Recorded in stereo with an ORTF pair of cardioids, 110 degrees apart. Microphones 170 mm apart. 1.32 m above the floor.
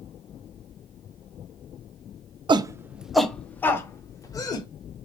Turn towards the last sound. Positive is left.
turn(degrees=25)